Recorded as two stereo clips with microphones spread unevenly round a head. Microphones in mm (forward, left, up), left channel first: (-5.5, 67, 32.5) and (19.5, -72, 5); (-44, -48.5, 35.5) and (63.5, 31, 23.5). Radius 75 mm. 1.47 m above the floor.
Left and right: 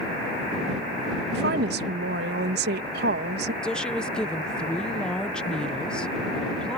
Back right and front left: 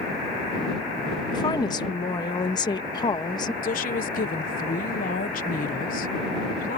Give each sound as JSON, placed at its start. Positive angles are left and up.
{"t": 1.3, "sound": "a woman speaking", "azimuth_deg": -80}
{"t": 3.6, "sound": "a woman speaking", "azimuth_deg": -175}